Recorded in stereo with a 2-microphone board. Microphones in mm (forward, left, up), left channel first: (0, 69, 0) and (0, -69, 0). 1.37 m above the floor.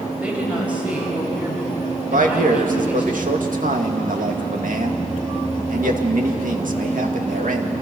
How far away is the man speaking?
About 2.5 m.